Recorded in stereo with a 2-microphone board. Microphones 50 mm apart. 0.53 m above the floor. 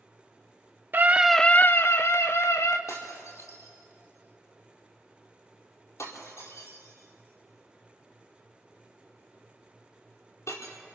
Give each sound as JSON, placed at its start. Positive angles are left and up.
{"t": 0.9, "sound": "a scream", "side_deg": -45, "distance_m": 0.8}
{"t": 2.9, "sound": "breaking glass", "side_deg": 85, "distance_m": 4.5}